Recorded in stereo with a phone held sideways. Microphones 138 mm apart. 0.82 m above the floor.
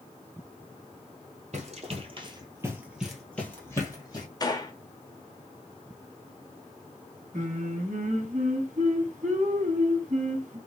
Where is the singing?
60° right (ahead or behind), 1.5 m.